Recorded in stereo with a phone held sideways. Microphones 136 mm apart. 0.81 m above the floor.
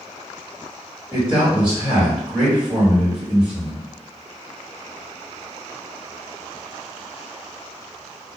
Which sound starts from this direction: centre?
A man speaking, at 1.1 s.